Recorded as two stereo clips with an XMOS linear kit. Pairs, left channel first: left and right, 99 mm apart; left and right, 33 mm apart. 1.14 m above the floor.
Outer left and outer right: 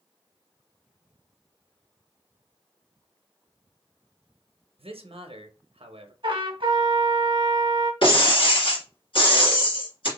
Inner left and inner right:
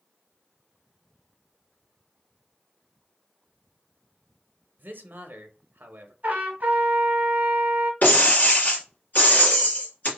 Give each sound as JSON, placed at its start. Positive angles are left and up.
{"t": 4.8, "sound": "a man speaking", "side_deg": -75, "distance_m": 0.9}
{"t": 6.2, "sound": "a trumpet", "side_deg": -55, "distance_m": 1.2}
{"t": 8.0, "sound": "breaking glass", "side_deg": 65, "distance_m": 2.0}